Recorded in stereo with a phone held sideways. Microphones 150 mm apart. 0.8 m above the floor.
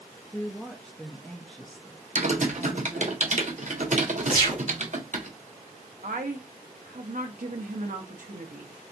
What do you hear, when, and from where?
0.3 s a woman speaking: 5° left (ahead or behind), 0.7 m
2.1 s typing on a keyboard: 55° right (ahead or behind), 0.8 m
4.3 s a gunshot: 70° left (ahead or behind), 1.8 m
6.0 s a woman speaking: 65° right (ahead or behind), 0.9 m